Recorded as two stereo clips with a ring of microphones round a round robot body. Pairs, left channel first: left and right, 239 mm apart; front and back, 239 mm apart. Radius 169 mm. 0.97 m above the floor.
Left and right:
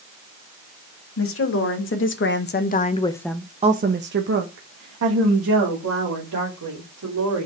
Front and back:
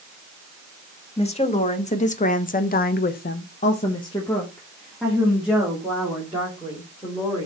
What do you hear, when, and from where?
1.2 s a woman speaking: 65° left, 2.0 m; by 7.5 s 100° right, 3.5 m